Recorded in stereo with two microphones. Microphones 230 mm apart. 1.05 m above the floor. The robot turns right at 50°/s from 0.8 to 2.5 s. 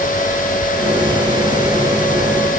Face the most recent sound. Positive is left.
No sound to turn to.